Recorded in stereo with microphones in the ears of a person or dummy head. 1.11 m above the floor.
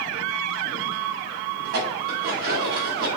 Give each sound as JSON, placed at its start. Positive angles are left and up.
{"t": 1.6, "sound": "dishes clattering", "side_deg": -65, "distance_m": 2.0}